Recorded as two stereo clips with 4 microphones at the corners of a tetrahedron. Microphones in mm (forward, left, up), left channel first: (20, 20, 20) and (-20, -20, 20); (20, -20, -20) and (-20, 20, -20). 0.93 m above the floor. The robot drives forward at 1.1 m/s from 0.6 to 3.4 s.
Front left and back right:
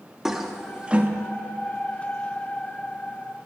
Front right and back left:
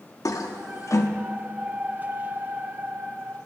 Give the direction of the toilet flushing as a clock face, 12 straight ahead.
2 o'clock.